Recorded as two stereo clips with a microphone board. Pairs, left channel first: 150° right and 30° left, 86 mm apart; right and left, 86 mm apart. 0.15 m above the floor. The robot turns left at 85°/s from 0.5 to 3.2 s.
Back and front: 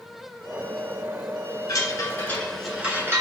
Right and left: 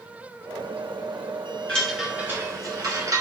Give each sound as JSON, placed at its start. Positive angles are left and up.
{"t": 1.7, "sound": "a chime", "azimuth_deg": -160, "distance_m": 1.1}